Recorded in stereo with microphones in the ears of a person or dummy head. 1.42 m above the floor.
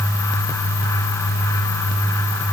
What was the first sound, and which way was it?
Only background noise.